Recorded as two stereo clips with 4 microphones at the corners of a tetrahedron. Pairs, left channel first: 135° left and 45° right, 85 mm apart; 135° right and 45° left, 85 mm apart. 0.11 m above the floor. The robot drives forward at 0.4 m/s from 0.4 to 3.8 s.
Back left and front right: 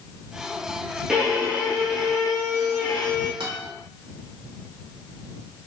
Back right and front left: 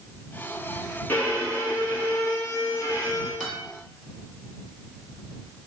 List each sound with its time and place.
1.1 s a violin: 115° right, 1.4 m; by 3.3 s 155° right, 1.8 m
3.4 s a guitar: 40° right, 1.7 m; by 3.6 s 45° right, 1.7 m